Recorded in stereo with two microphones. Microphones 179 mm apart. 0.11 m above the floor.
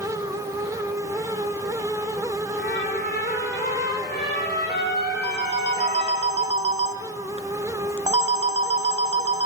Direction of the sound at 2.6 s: 65° left (ahead or behind).